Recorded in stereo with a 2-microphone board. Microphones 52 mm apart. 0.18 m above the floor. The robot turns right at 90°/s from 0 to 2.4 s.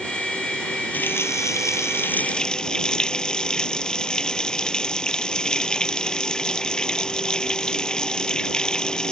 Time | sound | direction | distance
0.9 | a running tap | 35° left | ?